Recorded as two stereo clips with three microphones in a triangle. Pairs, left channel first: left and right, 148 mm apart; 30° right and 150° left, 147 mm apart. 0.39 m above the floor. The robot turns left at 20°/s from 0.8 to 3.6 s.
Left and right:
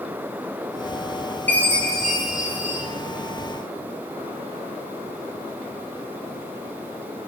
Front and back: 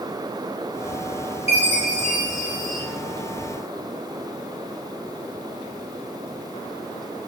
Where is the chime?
15° left, 0.5 m; by 2.8 s 15° right, 0.5 m.